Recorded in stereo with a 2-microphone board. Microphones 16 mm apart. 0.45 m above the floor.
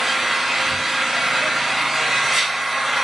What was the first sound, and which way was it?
An engine running, 20° right (ahead or behind).